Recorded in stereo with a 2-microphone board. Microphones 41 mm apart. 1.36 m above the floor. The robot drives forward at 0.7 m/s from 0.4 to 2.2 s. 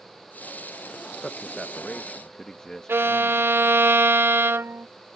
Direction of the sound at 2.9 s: 80° right.